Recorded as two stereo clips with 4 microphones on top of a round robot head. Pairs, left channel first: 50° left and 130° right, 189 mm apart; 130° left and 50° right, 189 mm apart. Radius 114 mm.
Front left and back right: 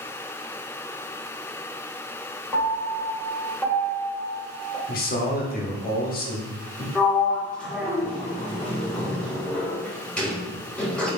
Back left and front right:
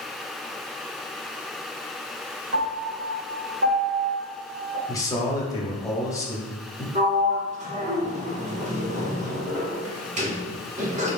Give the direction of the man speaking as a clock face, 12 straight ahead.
10 o'clock.